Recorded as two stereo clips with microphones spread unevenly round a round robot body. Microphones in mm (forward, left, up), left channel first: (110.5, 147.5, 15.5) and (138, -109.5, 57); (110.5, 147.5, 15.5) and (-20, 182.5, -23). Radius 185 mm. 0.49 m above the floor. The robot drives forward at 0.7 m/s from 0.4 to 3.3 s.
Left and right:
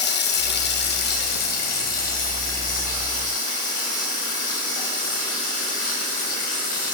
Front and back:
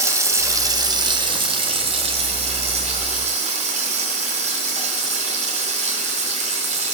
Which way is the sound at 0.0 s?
115° left.